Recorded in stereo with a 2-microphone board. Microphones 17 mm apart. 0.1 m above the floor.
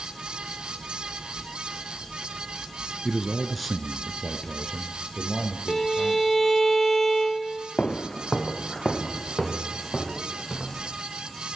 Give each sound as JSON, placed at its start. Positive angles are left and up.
{"t": 3.0, "sound": "a man speaking", "side_deg": -20, "distance_m": 1.3}
{"t": 5.7, "sound": "a violin", "side_deg": 20, "distance_m": 0.7}
{"t": 7.8, "sound": "footsteps", "side_deg": 70, "distance_m": 0.7}